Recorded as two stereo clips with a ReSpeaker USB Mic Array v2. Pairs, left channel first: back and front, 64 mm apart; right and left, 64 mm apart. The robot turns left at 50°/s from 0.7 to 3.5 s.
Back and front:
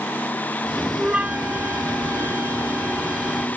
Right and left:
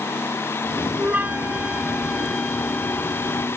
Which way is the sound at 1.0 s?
60° left.